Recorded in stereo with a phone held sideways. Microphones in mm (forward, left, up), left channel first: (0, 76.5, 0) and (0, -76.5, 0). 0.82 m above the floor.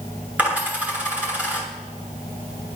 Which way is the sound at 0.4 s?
10° right (ahead or behind).